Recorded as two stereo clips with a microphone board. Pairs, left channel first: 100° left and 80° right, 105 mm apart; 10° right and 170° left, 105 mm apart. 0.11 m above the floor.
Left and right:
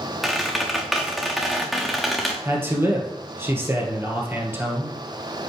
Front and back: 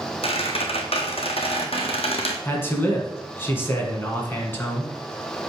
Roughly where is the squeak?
Ahead.